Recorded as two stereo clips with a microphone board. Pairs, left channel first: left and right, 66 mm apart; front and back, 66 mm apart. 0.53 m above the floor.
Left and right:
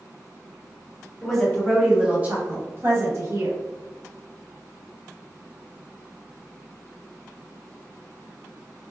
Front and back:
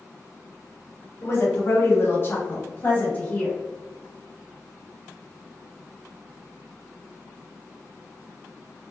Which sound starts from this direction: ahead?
A woman speaking, at 1.2 s.